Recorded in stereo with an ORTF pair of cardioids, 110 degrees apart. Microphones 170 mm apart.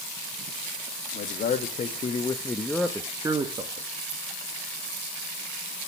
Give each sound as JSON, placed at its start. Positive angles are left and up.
{"t": 1.1, "sound": "a man speaking", "azimuth_deg": 60, "distance_m": 1.8}